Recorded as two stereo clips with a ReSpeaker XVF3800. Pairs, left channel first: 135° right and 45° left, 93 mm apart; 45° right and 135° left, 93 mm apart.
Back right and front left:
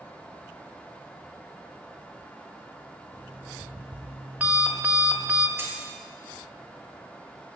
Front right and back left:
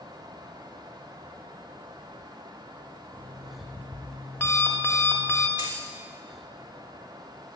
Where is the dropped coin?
105° left, 1.6 m.